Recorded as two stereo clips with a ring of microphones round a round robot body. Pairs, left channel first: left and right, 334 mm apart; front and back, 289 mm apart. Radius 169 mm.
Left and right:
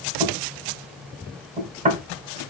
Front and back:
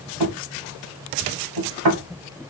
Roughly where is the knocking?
Behind right.